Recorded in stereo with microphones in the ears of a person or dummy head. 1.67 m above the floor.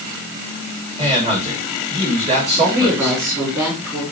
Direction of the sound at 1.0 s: 30° right (ahead or behind).